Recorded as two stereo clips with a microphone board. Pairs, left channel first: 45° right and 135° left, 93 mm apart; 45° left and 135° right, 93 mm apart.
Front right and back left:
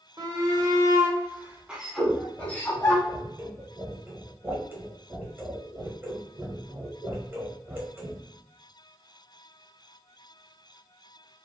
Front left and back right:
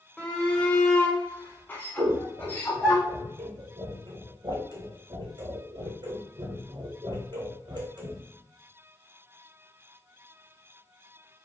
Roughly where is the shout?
Behind left.